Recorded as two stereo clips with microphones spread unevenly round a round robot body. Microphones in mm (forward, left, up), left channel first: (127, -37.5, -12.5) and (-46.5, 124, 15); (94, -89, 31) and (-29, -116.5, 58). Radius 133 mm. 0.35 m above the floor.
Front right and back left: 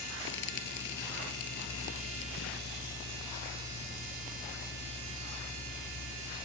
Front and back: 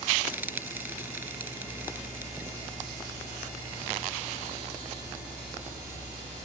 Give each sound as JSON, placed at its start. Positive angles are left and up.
{"t": 0.3, "sound": "frying", "azimuth_deg": -95}